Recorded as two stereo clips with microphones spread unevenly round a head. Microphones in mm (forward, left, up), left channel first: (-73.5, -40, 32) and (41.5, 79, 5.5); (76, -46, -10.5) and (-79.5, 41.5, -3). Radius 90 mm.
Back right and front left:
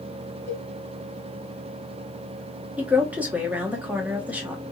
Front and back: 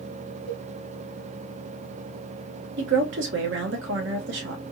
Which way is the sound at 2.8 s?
130° left.